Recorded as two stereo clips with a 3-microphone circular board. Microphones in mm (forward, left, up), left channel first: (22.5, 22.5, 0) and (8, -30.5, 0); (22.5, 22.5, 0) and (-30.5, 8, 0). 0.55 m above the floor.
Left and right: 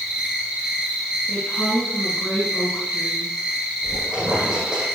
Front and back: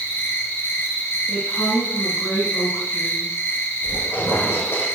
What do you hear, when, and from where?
0.0 s an insect: 30° right, 3.5 m
1.3 s a woman speaking: 10° left, 5.5 m
3.8 s a squeak: 30° right, 7.5 m